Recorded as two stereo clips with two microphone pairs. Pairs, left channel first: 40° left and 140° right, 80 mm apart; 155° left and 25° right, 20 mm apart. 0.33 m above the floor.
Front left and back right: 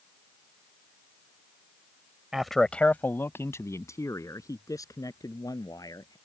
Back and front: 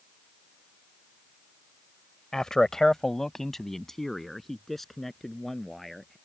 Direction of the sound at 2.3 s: 140° left.